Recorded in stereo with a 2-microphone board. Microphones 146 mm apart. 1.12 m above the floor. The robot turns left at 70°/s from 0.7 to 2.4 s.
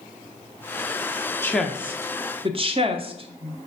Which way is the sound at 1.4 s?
15° left (ahead or behind).